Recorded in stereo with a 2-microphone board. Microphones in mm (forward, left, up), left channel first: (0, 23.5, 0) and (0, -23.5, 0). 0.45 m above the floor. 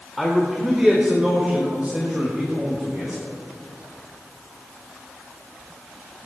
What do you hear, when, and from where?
0.2 s a man speaking: centre (ahead or behind), 1.6 m; by 3.2 s 35° right (ahead or behind), 3 m